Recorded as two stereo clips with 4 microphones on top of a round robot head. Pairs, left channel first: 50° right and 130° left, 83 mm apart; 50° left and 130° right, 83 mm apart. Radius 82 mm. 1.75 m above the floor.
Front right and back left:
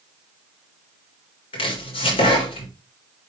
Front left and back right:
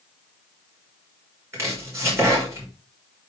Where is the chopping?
70° right, 4.5 m.